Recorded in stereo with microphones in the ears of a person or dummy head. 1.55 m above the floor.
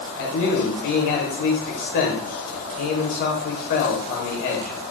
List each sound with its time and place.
0.2 s a man speaking: 45° left (ahead or behind), 0.8 m